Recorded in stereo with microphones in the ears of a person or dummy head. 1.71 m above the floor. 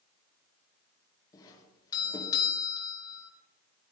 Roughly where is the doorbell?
Centre.